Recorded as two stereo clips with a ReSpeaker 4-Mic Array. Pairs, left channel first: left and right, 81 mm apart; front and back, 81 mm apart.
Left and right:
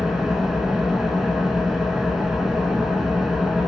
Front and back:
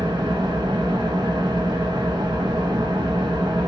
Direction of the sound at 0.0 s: 175° right.